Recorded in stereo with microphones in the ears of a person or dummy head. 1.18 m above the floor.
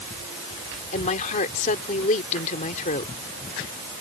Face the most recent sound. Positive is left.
turn(degrees=40)  # may be behind; listen again after turning